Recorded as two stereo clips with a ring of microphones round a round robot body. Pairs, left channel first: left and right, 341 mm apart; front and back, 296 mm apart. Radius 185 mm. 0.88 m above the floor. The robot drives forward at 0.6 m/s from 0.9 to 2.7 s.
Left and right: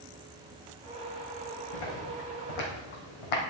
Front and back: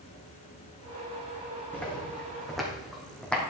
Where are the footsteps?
85° left, 3.5 m.